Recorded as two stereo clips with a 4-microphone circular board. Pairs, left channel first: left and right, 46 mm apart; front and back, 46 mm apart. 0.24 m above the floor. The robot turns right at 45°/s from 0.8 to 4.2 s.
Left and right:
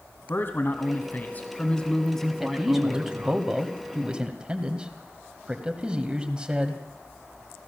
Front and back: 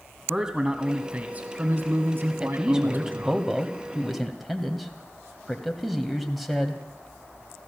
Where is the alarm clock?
No alarm clock in this recording.